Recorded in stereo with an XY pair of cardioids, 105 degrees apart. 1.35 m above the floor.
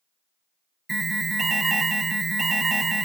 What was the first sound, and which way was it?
An alarm, 25° right.